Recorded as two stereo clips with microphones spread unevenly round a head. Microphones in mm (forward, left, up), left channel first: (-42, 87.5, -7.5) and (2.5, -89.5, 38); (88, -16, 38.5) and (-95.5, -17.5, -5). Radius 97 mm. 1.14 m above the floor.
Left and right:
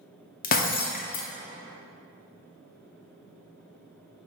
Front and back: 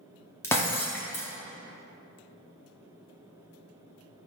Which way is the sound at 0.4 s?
55° left.